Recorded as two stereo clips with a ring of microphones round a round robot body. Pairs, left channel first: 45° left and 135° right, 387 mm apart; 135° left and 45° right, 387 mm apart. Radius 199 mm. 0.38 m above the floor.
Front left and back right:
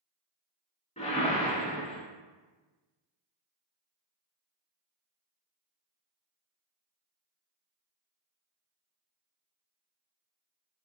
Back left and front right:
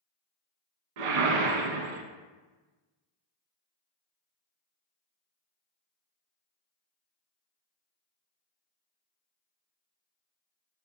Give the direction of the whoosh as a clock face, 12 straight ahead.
1 o'clock.